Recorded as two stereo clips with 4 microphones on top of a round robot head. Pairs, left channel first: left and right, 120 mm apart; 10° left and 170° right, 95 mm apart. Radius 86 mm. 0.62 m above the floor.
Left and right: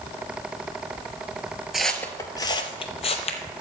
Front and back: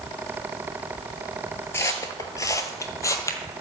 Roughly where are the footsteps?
Ahead.